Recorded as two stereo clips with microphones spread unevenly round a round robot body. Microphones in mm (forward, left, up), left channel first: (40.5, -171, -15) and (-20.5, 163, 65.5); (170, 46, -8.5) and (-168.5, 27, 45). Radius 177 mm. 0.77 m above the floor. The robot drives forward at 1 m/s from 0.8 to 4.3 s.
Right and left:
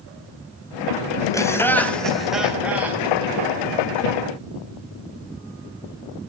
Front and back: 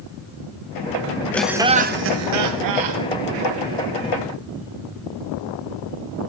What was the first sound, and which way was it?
Laughter, 55° right.